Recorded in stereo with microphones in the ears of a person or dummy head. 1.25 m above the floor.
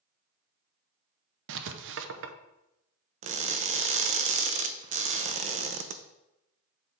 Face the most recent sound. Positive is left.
turn(degrees=-45)  # may be behind; listen again after turning